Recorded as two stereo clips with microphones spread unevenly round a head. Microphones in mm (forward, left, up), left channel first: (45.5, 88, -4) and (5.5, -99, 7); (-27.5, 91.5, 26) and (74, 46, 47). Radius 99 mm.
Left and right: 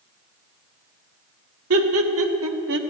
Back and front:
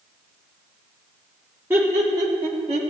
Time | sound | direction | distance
1.7 | laughter | 105° right | 1.9 m